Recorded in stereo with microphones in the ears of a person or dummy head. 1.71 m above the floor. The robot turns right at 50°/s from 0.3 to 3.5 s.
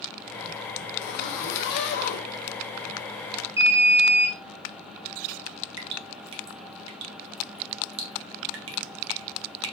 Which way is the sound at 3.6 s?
10° right (ahead or behind).